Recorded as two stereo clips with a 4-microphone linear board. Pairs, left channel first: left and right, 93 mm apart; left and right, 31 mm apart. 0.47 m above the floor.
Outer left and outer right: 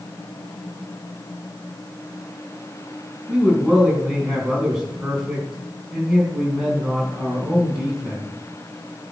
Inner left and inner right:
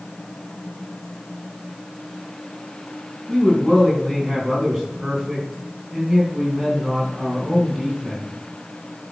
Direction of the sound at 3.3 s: 5° right (ahead or behind).